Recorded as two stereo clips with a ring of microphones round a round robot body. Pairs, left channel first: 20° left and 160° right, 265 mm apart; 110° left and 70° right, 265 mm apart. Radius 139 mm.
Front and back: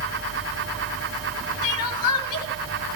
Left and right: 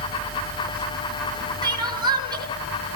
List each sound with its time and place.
1.6 s crying: 10° left, 5 m